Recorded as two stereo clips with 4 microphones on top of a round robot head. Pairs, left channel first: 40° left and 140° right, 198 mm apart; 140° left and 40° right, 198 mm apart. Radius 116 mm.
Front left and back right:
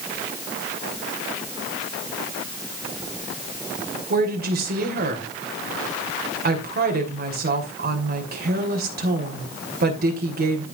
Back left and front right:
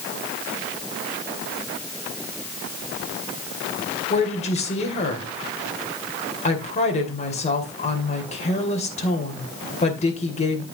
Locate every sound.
4.1 s a woman speaking: 170° right, 2.5 m